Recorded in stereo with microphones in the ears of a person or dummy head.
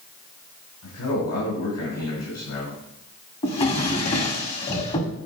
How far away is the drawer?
About 1.6 m.